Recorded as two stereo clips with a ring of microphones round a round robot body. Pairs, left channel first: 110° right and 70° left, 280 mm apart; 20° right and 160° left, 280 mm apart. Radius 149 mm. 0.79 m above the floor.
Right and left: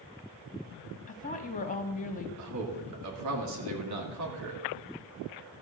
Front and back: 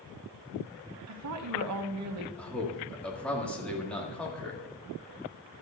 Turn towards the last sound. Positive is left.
turn(degrees=65)